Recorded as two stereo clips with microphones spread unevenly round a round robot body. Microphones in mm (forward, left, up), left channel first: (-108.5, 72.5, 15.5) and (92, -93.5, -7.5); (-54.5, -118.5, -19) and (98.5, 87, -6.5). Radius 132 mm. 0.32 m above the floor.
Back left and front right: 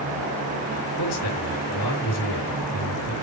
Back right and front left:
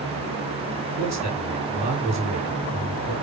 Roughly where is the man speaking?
Behind left.